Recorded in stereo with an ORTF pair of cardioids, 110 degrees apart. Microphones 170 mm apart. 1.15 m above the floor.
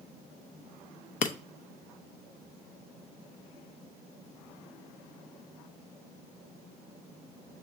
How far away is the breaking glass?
About 0.6 m.